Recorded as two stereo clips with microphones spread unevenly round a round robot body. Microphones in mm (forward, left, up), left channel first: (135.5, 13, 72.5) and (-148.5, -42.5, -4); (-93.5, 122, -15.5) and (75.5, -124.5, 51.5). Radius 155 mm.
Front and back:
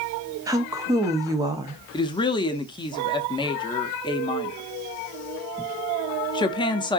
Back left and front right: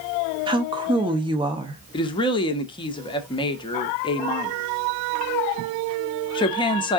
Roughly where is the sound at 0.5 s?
Behind right.